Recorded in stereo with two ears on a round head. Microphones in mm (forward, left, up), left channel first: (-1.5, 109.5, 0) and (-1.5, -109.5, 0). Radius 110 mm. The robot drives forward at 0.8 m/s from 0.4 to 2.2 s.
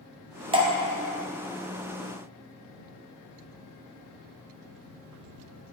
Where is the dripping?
25° right (ahead or behind), 0.6 m; by 0.7 s 20° right (ahead or behind), 0.8 m.